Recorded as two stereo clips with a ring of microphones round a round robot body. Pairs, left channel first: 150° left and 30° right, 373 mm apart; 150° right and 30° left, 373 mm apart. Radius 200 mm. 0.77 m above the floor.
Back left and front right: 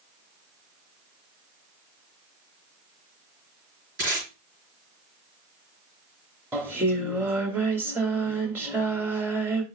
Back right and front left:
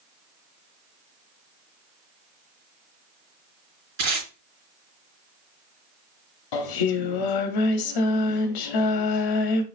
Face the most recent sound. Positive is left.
turn(degrees=-115)